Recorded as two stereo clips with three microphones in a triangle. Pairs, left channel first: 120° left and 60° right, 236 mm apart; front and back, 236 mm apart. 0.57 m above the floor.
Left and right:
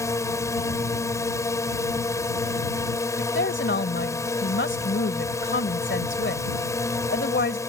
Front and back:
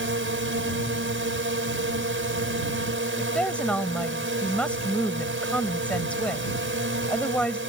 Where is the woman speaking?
85° left.